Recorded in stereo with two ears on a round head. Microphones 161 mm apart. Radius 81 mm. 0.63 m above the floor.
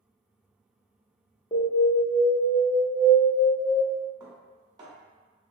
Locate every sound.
1.5 s an alarm: 25° left (ahead or behind), 0.9 m
4.2 s dishes clattering: 20° right (ahead or behind), 1.1 m